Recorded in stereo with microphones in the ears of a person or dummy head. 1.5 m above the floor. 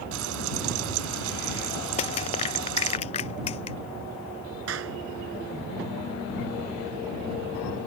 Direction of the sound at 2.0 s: 35° left (ahead or behind).